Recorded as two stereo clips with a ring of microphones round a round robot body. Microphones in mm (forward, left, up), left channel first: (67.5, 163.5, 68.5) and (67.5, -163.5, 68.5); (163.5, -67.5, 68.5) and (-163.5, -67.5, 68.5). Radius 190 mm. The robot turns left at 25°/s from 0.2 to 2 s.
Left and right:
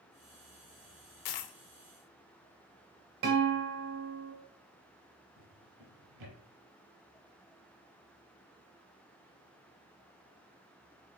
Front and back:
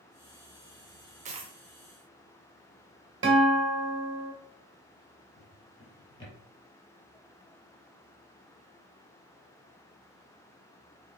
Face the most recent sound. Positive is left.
turn(degrees=-75)